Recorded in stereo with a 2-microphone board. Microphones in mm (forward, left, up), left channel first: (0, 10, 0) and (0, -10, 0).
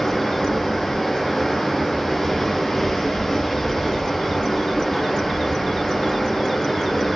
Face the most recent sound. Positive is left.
turn(degrees=20)  # may be behind; listen again after turning